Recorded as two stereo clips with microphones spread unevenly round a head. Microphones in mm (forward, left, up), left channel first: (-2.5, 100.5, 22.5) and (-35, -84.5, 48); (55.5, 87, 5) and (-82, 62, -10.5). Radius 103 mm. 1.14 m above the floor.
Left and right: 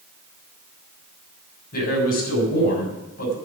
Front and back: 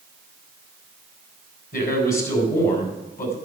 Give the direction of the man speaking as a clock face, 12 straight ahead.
11 o'clock.